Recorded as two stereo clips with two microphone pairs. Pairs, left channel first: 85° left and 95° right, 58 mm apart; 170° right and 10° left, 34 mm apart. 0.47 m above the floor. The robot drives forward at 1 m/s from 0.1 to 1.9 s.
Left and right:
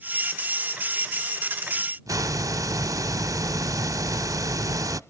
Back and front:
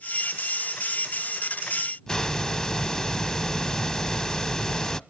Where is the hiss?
100° right, 0.5 m.